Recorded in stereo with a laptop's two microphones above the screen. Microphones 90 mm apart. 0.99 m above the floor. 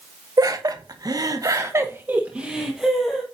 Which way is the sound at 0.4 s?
45° right (ahead or behind).